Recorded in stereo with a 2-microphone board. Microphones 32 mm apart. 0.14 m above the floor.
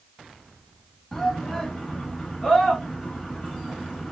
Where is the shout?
5° left (ahead or behind), 1.5 m.